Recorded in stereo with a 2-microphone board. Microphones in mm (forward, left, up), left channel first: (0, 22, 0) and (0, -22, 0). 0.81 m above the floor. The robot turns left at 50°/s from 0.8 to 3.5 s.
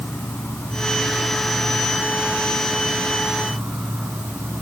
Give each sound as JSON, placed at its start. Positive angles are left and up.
{"t": 0.0, "sound": "an insect", "azimuth_deg": 45, "distance_m": 1.8}